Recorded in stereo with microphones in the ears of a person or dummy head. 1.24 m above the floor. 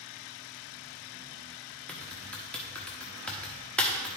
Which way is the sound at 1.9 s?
5° left (ahead or behind).